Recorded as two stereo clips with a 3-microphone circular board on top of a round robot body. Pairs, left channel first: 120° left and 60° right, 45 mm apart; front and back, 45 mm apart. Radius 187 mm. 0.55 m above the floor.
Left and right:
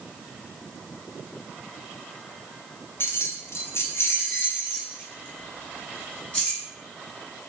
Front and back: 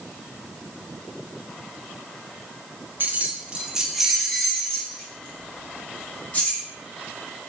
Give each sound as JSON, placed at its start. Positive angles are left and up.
{"t": 3.0, "sound": "keys jangling", "azimuth_deg": 145, "distance_m": 0.9}